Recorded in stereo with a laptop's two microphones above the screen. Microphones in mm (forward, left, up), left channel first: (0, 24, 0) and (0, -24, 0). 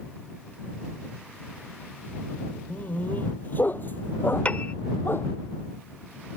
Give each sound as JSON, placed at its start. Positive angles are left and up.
{"t": 2.7, "sound": "a dog barking", "side_deg": 35}
{"t": 4.5, "sound": "a piano", "side_deg": 30}